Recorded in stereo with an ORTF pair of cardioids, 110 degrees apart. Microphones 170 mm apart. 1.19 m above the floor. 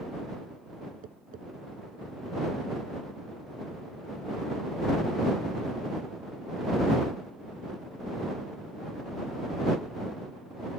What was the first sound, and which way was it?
Tapping, 50° right.